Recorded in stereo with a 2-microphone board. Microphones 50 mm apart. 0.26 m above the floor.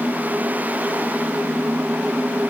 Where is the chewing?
I don't hear chewing.